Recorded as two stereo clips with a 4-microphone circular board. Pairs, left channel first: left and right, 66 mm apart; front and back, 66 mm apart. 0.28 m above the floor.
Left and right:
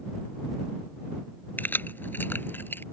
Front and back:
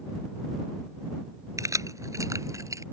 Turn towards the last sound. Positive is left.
turn(degrees=145)